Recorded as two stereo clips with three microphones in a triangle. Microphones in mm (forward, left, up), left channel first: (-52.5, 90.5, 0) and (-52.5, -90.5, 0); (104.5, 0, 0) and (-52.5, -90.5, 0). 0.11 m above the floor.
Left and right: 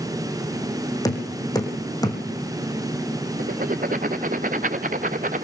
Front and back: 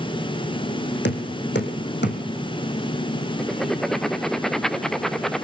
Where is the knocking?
20° left, 3.5 m.